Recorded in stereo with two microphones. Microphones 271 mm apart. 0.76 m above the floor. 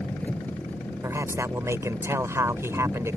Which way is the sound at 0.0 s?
5° left (ahead or behind).